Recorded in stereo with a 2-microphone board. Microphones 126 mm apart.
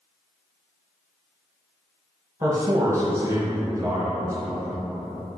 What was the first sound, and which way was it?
A man speaking, 25° right (ahead or behind).